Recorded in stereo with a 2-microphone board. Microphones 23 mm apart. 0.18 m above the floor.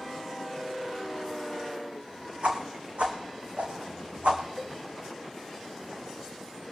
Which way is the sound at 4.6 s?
5° left (ahead or behind).